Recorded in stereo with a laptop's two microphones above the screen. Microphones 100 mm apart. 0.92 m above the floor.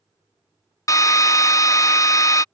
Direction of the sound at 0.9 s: 35° left (ahead or behind).